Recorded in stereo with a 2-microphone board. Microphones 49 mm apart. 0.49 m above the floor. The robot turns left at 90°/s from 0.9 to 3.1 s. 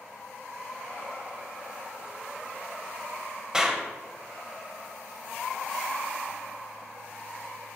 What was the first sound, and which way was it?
A clap, 15° right (ahead or behind).